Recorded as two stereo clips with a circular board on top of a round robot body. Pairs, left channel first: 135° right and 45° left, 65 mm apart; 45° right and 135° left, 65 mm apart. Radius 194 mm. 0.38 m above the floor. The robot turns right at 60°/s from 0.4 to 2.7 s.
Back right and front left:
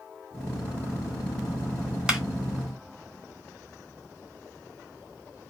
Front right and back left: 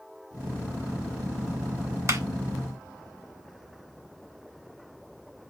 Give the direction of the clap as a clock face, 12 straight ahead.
8 o'clock.